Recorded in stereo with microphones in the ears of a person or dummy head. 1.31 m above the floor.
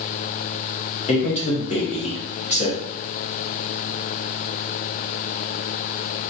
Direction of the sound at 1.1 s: 30° left (ahead or behind).